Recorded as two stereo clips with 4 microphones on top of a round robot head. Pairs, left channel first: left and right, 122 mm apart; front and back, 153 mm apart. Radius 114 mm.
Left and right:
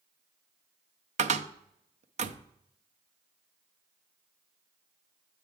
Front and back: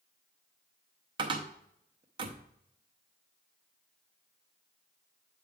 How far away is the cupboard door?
About 0.6 m.